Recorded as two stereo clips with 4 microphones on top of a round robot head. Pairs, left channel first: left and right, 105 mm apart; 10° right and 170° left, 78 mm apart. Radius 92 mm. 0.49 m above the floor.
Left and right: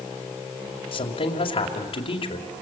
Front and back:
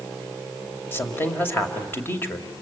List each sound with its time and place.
0.9 s a woman speaking: 55° left, 2.5 m